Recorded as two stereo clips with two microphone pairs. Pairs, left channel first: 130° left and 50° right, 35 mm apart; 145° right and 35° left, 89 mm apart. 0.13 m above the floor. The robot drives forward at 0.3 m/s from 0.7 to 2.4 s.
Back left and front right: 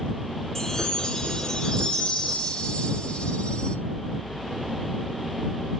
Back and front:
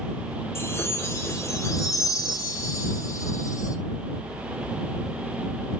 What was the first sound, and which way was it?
A chime, 175° right.